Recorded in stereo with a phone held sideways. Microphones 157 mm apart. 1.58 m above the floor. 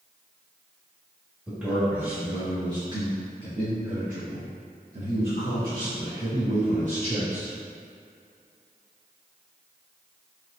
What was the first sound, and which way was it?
A man speaking, 10° right (ahead or behind).